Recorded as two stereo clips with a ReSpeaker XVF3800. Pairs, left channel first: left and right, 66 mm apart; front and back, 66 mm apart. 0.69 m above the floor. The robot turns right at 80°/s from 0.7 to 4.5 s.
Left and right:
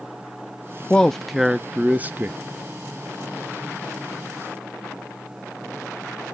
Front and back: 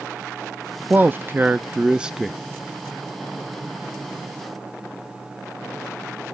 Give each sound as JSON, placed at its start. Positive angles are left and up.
{"t": 0.9, "sound": "a man speaking", "azimuth_deg": 155, "distance_m": 0.6}